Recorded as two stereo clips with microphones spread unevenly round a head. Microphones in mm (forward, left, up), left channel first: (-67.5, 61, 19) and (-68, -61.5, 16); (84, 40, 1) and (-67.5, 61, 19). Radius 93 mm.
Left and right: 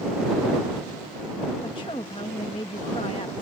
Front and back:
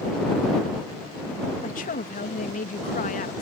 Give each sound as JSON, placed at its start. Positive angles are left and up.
{"t": 1.6, "sound": "a woman speaking", "azimuth_deg": 25}